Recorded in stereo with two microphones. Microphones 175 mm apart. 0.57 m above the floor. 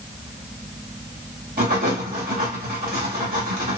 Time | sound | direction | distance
1.6 | writing | 55° right (ahead or behind) | 1.3 m